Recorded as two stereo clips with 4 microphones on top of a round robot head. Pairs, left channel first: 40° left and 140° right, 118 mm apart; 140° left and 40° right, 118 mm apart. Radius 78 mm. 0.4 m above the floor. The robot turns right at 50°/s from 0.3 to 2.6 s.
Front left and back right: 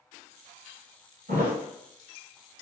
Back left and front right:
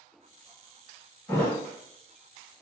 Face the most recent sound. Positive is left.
turn(degrees=-90)